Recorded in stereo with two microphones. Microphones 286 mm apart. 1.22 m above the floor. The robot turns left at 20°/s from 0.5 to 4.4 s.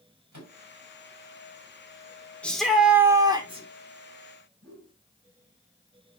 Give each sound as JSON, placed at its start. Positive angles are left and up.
{"t": 0.3, "sound": "a microwave", "side_deg": -80, "distance_m": 5.0}
{"t": 2.4, "sound": "a shout", "side_deg": 5, "distance_m": 3.5}
{"t": 4.6, "sound": "a whoosh", "side_deg": -50, "distance_m": 4.0}